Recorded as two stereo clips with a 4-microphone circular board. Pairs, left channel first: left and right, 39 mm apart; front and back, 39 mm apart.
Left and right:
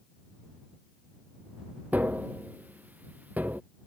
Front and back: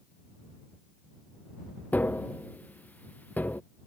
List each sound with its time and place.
1.9 s tapping: 50° right